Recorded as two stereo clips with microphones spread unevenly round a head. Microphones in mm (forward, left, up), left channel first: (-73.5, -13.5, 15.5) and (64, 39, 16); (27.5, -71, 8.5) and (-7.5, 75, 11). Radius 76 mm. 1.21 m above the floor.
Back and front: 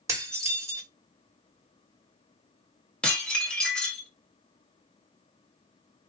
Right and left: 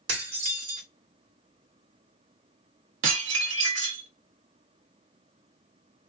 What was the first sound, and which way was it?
Dishes clattering, 90° left.